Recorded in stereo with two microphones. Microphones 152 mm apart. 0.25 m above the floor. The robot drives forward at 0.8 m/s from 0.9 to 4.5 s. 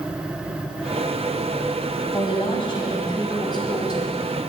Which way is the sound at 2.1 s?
35° left (ahead or behind).